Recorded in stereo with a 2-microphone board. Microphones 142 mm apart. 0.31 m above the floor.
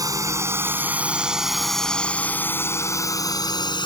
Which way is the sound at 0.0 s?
25° right (ahead or behind).